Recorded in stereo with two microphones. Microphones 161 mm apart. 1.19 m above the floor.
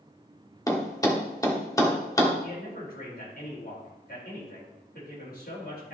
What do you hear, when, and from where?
0.7 s a thud: 20° left (ahead or behind), 1.2 m
2.4 s a man speaking: 70° left (ahead or behind), 4.5 m